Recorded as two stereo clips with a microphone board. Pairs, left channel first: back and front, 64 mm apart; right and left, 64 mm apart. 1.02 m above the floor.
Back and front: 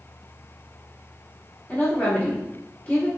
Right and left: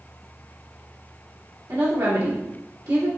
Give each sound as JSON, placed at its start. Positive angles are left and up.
{"t": 1.7, "sound": "a woman speaking", "azimuth_deg": 110, "distance_m": 1.7}